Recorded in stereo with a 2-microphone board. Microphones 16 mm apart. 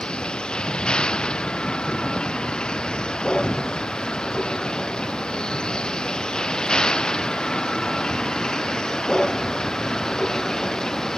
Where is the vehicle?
75° left (ahead or behind); by 11.2 s 45° left (ahead or behind).